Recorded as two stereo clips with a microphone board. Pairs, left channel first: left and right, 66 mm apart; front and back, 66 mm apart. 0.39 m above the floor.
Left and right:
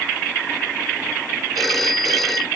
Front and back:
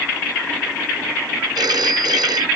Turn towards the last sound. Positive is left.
turn(degrees=180)